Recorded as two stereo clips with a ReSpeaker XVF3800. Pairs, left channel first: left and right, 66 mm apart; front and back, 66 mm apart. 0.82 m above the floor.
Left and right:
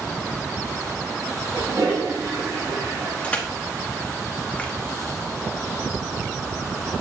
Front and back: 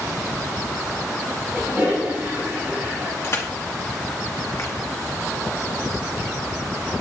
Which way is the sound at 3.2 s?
30° left.